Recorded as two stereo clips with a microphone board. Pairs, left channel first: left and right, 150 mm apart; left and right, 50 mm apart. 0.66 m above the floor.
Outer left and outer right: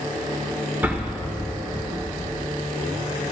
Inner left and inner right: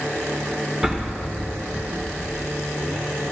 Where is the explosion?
10° right (ahead or behind), 1.7 m.